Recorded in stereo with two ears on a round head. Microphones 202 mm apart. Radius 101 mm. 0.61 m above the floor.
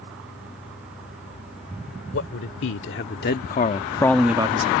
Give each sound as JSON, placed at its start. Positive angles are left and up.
{"t": 2.1, "sound": "a man speaking", "side_deg": 60}